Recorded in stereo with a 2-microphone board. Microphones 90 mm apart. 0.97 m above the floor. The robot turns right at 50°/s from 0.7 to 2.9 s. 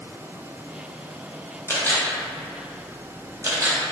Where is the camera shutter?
25° left (ahead or behind), 0.5 m; by 3.8 s 35° right (ahead or behind), 0.5 m.